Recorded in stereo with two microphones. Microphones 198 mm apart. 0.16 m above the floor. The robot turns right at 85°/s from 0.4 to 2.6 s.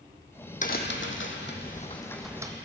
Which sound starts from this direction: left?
A crack, at 0.6 s.